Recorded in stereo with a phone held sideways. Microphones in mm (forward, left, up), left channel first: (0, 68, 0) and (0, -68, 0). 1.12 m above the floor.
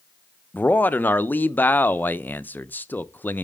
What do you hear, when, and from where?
0.5 s a man speaking: 15° left (ahead or behind), 0.5 m